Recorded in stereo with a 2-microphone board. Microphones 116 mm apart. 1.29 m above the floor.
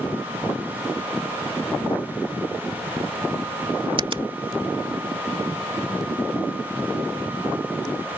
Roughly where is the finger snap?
Right.